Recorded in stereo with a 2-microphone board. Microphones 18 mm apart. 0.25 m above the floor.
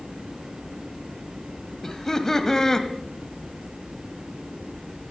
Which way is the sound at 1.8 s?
25° left (ahead or behind).